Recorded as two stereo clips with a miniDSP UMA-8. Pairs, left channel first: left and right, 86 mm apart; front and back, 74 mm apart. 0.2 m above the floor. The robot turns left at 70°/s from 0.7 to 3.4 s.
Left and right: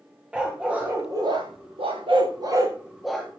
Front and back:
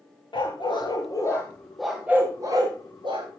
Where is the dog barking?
10° right, 7.5 m; by 3.3 s 170° left, 7.5 m.